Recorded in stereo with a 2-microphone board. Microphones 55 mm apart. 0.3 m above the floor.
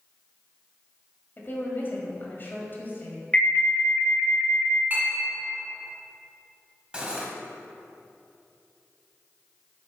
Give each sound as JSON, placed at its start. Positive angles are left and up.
{"t": 1.4, "sound": "a woman speaking", "side_deg": 40, "distance_m": 1.4}
{"t": 3.3, "sound": "an alarm", "side_deg": 25, "distance_m": 0.8}
{"t": 4.9, "sound": "a clink", "side_deg": -35, "distance_m": 2.0}
{"t": 6.9, "sound": "cutlery clinking", "side_deg": -15, "distance_m": 0.8}